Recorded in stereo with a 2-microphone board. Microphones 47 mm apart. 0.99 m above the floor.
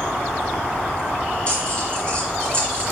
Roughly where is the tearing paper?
Left.